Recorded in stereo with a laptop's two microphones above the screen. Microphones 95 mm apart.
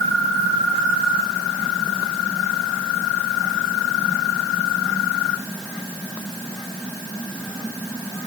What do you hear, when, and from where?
Only background noise.